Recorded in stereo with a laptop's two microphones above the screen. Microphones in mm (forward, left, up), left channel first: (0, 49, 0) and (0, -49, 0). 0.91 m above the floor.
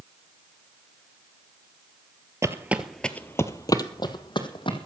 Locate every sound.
2.4 s footsteps: 30° right (ahead or behind), 1.0 m; by 4.9 s 55° left (ahead or behind), 2.5 m